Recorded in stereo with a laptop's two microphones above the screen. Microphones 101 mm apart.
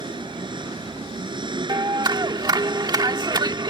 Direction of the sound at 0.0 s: 50° right (ahead or behind).